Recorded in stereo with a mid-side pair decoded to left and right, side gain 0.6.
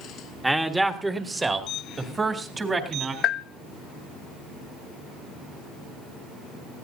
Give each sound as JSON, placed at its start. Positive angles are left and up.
{"t": 0.4, "sound": "a man speaking", "azimuth_deg": -10, "distance_m": 1.8}
{"t": 3.2, "sound": "a bell", "azimuth_deg": 55, "distance_m": 0.6}